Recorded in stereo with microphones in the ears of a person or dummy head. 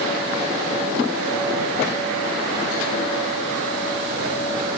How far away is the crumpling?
I don't hear crumpling.